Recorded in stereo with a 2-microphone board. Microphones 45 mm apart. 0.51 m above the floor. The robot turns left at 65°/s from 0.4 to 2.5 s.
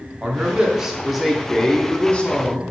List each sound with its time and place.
0.2 s a man speaking: 20° right (ahead or behind), 0.7 m; by 2.7 s 30° left (ahead or behind), 0.7 m